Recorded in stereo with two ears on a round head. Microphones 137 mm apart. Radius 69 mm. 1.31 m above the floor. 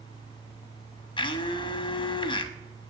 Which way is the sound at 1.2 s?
30° left (ahead or behind).